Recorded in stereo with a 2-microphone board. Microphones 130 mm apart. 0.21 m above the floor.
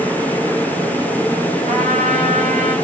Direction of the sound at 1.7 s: 70° right (ahead or behind).